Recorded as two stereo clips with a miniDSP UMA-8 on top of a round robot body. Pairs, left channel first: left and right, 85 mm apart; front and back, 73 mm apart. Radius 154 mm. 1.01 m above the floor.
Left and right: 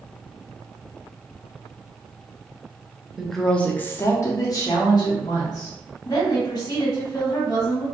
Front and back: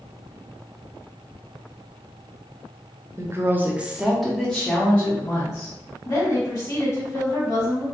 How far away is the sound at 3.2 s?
About 0.7 m.